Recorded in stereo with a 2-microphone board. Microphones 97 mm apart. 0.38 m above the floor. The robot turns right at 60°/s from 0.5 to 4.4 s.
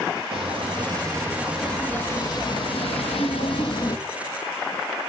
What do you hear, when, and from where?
0.3 s footsteps: 70° right (ahead or behind), 6 m; by 4.0 s 40° left (ahead or behind), 1.6 m